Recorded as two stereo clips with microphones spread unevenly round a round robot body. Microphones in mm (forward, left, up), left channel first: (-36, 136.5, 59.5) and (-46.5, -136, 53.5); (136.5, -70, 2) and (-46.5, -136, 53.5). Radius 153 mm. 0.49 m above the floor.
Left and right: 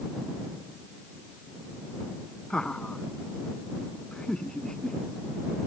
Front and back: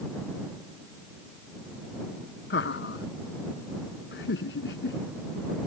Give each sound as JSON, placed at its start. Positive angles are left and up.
{"t": 2.5, "sound": "laughter", "azimuth_deg": 0}